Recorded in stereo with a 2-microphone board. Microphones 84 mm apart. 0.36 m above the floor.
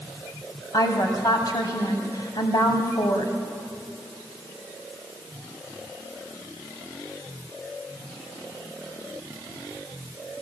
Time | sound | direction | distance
0.7 | a woman speaking | 50° left (ahead or behind) | 2.5 m